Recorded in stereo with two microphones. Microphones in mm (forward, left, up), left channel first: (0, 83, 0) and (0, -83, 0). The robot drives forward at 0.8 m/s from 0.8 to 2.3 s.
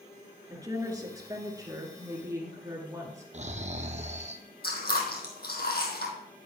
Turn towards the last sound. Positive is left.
turn(degrees=70)  # may be behind; listen again after turning